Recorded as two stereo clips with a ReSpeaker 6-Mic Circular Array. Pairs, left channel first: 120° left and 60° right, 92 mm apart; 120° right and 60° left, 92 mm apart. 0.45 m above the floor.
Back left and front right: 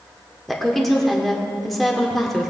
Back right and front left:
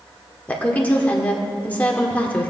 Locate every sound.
0.5 s a woman speaking: 155° right, 1.3 m